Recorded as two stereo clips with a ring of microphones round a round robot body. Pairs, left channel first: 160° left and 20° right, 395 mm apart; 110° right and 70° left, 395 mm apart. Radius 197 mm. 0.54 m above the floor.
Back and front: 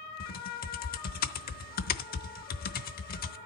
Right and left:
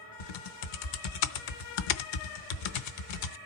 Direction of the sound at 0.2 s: 135° right.